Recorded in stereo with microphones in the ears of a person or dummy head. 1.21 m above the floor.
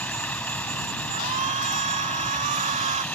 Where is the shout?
35° right (ahead or behind).